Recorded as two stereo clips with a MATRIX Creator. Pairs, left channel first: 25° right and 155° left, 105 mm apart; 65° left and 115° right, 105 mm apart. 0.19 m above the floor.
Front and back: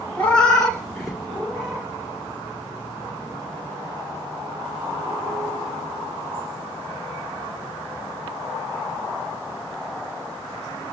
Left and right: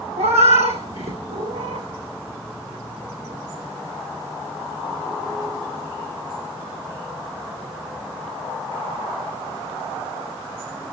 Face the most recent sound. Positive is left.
turn(degrees=-125)